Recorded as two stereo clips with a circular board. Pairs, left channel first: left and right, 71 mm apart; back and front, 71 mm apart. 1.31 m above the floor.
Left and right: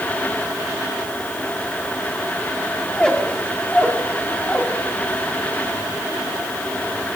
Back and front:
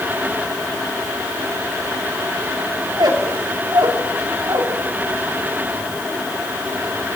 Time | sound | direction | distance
2.9 | a squeak | 15° left | 2.5 m